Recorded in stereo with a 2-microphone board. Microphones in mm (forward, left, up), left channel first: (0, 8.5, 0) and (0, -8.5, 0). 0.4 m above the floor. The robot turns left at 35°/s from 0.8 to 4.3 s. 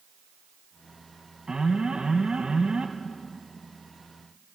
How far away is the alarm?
About 1.9 m.